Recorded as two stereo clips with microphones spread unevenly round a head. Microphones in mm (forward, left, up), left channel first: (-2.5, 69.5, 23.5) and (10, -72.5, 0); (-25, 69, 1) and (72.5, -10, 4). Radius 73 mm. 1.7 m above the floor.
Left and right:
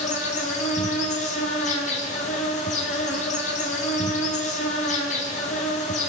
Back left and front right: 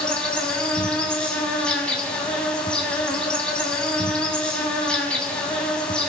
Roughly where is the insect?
Ahead left.